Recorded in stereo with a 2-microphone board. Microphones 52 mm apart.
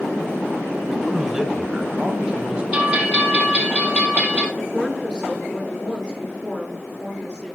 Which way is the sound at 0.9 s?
5° right (ahead or behind).